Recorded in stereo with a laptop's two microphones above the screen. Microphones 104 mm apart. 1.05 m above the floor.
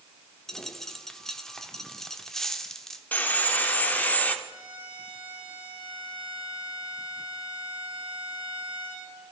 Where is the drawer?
I don't hear a drawer.